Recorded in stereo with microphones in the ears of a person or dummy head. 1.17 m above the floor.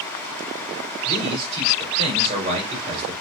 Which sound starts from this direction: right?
A man speaking, at 1.1 s.